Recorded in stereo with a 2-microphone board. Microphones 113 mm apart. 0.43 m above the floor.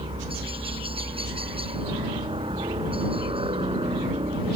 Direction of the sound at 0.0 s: 55° right (ahead or behind).